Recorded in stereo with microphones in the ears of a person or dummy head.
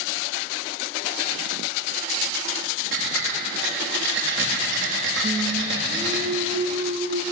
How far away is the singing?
About 1.7 m.